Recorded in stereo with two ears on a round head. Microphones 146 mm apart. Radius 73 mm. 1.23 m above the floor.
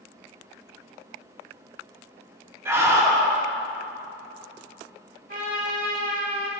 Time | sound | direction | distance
2.6 | a scream | 15° right (ahead or behind) | 2.5 m
5.3 | a trumpet | 55° right (ahead or behind) | 3 m